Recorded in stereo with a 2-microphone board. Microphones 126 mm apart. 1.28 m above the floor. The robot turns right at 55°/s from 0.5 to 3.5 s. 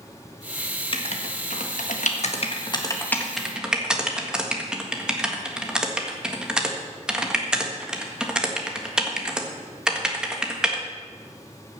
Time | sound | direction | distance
0.9 | writing | 45° left (ahead or behind) | 1.5 m